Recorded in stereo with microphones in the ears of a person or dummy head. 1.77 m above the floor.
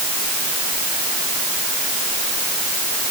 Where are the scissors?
No scissors in this recording.